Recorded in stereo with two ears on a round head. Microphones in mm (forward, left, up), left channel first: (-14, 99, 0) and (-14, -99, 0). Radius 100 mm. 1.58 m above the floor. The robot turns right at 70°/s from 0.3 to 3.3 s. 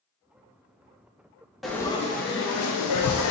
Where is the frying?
Straight ahead, 0.5 m; by 3.3 s 115° left, 0.5 m.